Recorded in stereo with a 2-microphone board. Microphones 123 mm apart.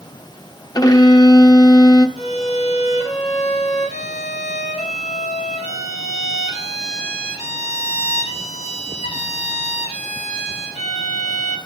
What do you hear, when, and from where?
0.8 s a violin: 35° left (ahead or behind), 0.6 m
2.2 s a violin: 75° left (ahead or behind), 1.4 m